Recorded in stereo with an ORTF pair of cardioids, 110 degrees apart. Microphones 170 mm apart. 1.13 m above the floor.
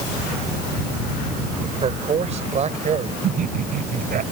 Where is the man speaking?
40° right.